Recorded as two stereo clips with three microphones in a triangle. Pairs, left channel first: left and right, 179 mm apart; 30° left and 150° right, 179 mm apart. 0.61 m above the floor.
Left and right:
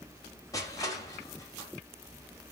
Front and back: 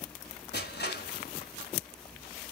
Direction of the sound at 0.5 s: 20° left.